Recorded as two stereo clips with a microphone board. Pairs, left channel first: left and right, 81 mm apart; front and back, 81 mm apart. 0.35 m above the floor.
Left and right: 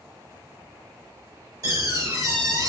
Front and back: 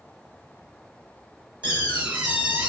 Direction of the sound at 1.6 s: 110° right.